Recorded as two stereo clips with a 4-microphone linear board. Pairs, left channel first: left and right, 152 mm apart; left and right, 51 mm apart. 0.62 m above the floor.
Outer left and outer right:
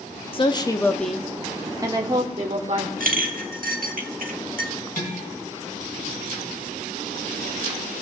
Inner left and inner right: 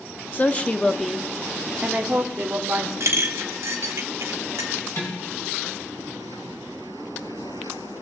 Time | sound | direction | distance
0.3 | a woman speaking | 40° left (ahead or behind) | 0.8 m
3.0 | a clink | 65° right (ahead or behind) | 1.1 m
5.0 | dishes clattering | 65° left (ahead or behind) | 4 m